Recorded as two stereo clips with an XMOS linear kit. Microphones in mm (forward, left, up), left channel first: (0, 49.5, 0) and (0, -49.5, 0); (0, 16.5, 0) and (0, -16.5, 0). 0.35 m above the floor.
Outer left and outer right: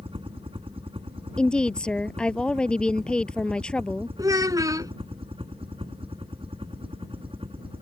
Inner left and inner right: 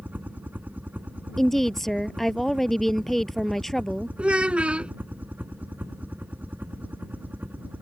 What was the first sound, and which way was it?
A helicopter, 70° right (ahead or behind).